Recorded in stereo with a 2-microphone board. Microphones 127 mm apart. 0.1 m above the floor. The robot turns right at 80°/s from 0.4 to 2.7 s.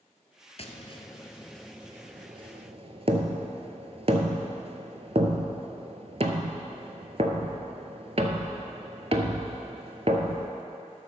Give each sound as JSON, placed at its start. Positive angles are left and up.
{"t": 0.6, "sound": "tapping", "side_deg": 50, "distance_m": 0.9}